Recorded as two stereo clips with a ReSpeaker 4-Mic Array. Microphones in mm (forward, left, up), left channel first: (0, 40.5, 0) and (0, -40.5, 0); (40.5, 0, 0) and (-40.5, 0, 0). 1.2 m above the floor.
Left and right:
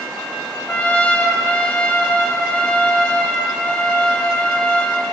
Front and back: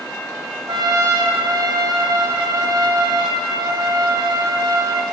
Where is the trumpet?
160° left, 1.1 m.